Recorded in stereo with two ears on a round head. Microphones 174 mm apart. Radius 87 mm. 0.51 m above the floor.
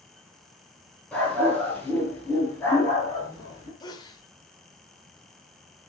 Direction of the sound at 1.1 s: 5° left (ahead or behind).